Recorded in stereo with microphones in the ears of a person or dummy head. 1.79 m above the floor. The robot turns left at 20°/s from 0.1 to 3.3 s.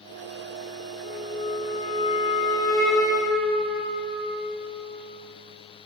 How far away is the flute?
About 0.5 m.